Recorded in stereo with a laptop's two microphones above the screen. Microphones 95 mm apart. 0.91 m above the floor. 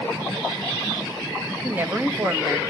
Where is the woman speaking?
20° right (ahead or behind), 0.8 m.